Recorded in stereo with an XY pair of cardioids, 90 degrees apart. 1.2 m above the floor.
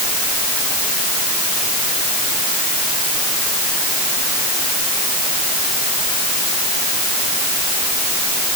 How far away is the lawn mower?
No lawn mower in this recording.